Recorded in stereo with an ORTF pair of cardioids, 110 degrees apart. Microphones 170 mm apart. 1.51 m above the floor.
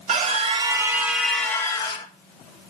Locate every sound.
0.1 s a scream: 45° right, 1.8 m; by 2.1 s 30° left, 1.8 m